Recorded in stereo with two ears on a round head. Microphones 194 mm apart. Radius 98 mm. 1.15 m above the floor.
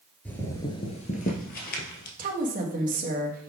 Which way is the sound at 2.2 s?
40° right (ahead or behind).